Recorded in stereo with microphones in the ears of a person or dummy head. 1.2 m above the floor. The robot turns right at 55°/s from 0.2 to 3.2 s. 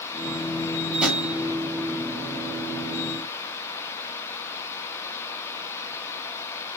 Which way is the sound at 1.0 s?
5° right (ahead or behind).